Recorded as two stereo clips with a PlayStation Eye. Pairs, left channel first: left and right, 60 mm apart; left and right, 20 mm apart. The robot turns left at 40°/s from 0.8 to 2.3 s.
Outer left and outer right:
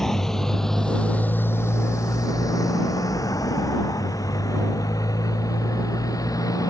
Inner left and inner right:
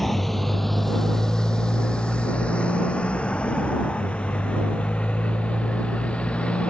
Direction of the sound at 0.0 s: 10° left (ahead or behind).